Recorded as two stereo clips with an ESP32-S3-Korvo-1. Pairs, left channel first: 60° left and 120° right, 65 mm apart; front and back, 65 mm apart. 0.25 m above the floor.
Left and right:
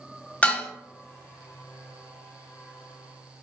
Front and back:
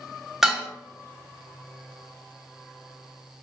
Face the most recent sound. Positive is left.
turn(degrees=105)